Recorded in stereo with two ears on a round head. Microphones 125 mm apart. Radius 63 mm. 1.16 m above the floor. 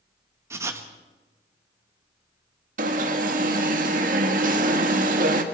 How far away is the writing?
About 1.7 m.